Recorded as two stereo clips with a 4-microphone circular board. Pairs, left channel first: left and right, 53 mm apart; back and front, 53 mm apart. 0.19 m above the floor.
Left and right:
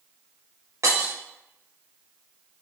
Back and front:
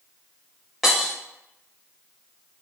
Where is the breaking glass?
90° right, 4 m.